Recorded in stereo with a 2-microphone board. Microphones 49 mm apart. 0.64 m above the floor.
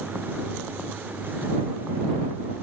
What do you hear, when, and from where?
Only background noise.